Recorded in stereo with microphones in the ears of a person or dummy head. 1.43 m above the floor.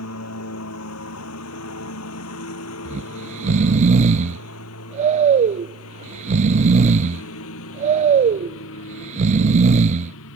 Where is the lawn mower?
80° left.